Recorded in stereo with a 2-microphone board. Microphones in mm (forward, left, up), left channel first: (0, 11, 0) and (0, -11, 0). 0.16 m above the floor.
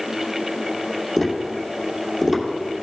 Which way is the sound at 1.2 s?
15° right (ahead or behind).